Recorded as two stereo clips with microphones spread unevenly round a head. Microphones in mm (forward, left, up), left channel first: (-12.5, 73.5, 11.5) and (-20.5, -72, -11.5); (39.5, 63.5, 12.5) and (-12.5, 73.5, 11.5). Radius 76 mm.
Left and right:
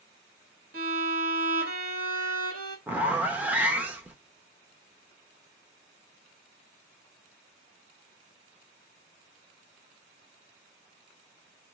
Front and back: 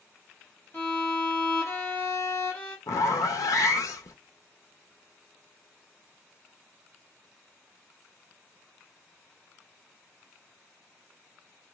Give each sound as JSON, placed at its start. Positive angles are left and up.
{"t": 0.7, "sound": "a violin", "azimuth_deg": -80, "distance_m": 1.6}
{"t": 2.9, "sound": "a zipper", "azimuth_deg": -15, "distance_m": 0.5}